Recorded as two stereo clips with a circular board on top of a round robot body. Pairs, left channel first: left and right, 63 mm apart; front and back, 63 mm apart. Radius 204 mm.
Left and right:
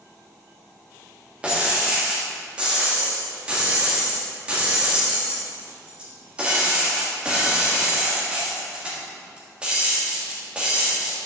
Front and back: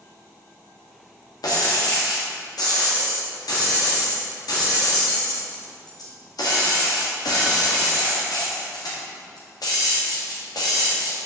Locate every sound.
1.4 s breaking glass: 15° right, 1.6 m